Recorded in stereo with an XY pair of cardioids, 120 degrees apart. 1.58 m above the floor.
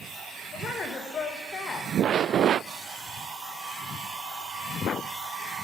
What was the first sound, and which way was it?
A woman speaking, 45° left.